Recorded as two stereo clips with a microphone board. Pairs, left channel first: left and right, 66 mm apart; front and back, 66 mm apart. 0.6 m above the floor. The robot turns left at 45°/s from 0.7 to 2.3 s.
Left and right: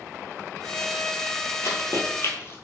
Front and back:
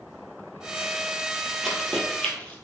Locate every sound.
1.6 s running footsteps: 90° left, 0.7 m; by 2.5 s 60° left, 0.7 m